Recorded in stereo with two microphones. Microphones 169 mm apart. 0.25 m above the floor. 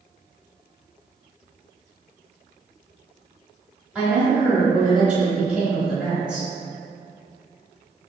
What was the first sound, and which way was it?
A woman speaking, 10° right (ahead or behind).